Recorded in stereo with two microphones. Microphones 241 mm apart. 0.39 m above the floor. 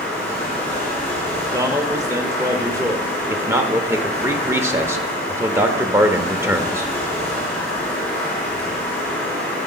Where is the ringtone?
No ringtone in this recording.